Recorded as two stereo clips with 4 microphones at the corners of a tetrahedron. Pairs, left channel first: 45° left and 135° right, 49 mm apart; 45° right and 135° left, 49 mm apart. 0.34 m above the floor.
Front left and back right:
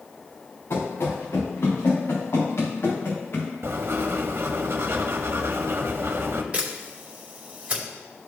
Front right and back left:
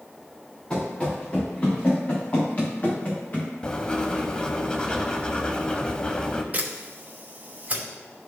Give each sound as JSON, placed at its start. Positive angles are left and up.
{"t": 0.7, "sound": "running footsteps", "azimuth_deg": 25, "distance_m": 3.0}
{"t": 3.6, "sound": "writing", "azimuth_deg": -115, "distance_m": 0.7}
{"t": 6.5, "sound": "a camera shutter", "azimuth_deg": 175, "distance_m": 2.0}